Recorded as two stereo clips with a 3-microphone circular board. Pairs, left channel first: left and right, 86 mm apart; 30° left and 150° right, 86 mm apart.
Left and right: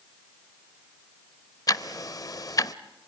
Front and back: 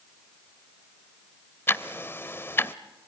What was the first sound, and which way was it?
Ticking, 80° left.